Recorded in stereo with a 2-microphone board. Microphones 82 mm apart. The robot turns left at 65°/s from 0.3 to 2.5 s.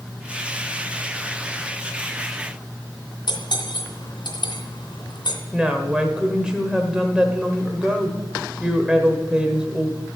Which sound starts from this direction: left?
Cutlery clinking, at 3.3 s.